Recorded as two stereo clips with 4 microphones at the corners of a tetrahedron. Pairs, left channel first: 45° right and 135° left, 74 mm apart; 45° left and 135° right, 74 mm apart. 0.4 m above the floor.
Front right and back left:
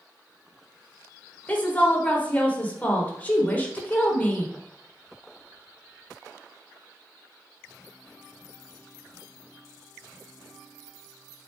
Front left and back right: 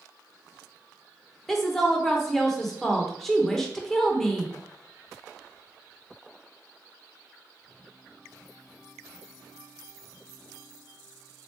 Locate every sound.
1.5 s a woman speaking: 35° right, 0.8 m